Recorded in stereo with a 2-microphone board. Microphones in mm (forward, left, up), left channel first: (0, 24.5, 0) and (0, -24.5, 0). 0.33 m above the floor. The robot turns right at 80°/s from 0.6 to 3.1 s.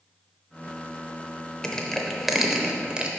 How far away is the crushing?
About 0.6 m.